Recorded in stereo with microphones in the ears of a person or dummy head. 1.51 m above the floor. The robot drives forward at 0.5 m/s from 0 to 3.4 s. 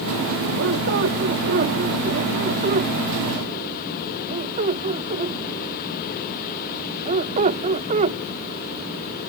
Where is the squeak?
65° right (ahead or behind); by 9.3 s 45° right (ahead or behind).